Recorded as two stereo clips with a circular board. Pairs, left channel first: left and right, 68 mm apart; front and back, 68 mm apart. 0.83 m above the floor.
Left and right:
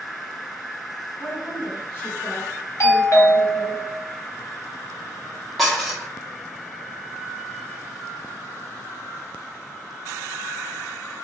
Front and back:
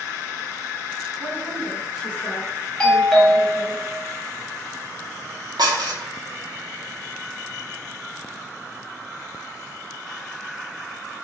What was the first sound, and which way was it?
A woman speaking, 135° left.